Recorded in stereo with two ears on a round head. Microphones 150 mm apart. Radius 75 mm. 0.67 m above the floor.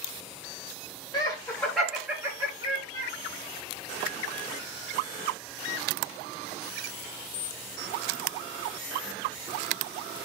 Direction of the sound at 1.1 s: 25° left (ahead or behind).